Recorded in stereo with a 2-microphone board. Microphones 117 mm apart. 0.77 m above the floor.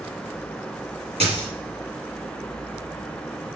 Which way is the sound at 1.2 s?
65° right (ahead or behind).